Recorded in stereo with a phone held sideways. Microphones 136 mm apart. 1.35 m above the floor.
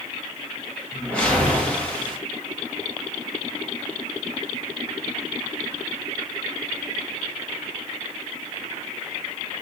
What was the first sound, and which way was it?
A whoosh, 10° left (ahead or behind).